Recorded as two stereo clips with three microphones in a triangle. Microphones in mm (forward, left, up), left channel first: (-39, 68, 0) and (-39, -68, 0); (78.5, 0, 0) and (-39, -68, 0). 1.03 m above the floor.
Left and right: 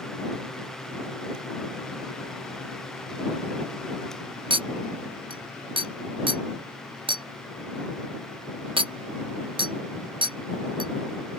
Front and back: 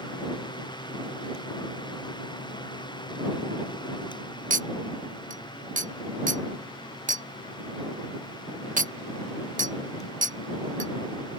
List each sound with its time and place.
4.5 s a clink: 140° right